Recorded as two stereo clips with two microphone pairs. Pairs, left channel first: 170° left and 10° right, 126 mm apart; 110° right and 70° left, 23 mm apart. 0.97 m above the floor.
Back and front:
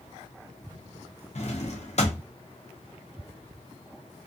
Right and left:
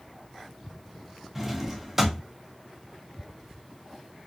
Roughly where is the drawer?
Behind left.